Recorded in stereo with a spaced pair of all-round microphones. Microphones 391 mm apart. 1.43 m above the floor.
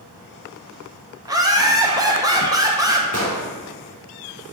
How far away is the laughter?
About 1.5 m.